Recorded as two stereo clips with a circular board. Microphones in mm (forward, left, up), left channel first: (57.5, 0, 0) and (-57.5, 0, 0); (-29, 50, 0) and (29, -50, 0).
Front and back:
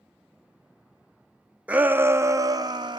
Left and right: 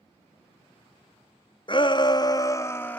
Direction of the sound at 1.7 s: 105° left.